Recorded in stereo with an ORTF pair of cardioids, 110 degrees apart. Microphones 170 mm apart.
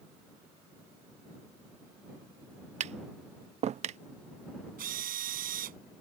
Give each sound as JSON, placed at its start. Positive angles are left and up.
{"t": 2.8, "sound": "tapping", "azimuth_deg": -40}
{"t": 4.8, "sound": "a drill", "azimuth_deg": -60}